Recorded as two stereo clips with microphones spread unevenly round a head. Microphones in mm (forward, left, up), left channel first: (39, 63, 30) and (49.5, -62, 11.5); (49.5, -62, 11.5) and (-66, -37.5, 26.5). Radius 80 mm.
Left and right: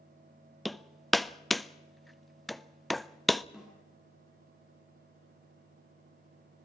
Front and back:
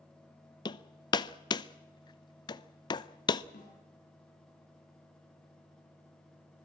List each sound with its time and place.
0.7 s hammering: 5° right, 0.6 m
3.5 s a snare drum: straight ahead, 8 m